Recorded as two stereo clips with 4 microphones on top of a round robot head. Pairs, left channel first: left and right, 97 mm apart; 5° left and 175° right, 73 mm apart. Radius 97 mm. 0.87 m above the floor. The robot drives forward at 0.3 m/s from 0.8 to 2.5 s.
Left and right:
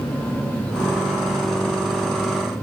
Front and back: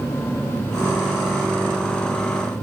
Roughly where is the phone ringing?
I don't hear a phone ringing.